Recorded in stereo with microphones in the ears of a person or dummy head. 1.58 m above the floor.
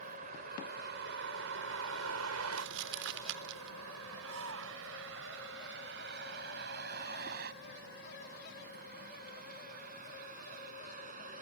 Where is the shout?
70° right (ahead or behind).